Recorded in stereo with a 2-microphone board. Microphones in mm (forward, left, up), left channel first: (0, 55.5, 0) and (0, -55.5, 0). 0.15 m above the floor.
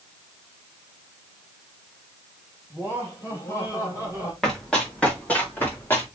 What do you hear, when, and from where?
2.7 s laughter: 25° left (ahead or behind), 5.5 m; by 4.3 s 35° left (ahead or behind), 5.5 m
4.4 s running footsteps: 5° left (ahead or behind), 4 m; by 6.0 s 20° left (ahead or behind), 4.5 m